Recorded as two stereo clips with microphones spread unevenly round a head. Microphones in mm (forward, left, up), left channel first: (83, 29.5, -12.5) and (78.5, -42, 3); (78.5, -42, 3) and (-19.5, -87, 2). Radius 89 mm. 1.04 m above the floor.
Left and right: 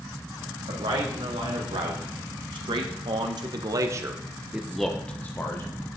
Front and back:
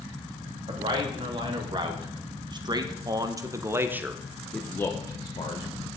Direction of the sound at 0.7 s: 115° right.